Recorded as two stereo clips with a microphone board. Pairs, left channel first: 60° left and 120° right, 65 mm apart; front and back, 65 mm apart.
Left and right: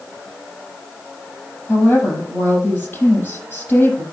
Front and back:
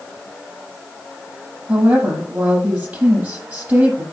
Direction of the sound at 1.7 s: 120° left.